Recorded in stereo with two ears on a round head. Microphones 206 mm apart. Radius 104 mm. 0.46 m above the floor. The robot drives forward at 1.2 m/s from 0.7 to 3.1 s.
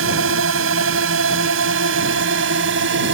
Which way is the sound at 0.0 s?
65° right (ahead or behind).